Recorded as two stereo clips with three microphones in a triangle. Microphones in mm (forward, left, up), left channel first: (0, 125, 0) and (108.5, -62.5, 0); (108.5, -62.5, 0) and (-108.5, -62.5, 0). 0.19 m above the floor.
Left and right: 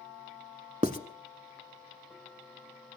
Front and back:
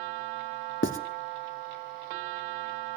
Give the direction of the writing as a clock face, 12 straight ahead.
12 o'clock.